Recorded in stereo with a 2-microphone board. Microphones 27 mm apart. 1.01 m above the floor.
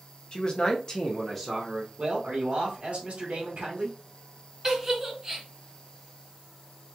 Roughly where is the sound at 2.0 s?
Right.